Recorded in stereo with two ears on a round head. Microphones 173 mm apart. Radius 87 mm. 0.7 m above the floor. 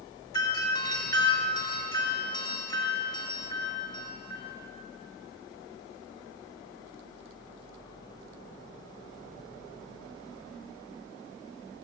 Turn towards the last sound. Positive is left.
turn(degrees=20)  # may be behind; listen again after turning